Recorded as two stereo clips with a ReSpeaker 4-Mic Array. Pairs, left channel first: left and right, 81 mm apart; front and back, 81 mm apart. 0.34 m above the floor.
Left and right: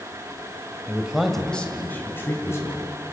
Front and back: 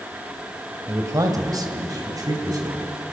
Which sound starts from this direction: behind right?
A man speaking, at 0.9 s.